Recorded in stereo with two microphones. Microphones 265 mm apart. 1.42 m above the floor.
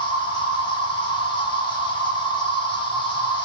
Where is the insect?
20° left (ahead or behind), 0.9 m.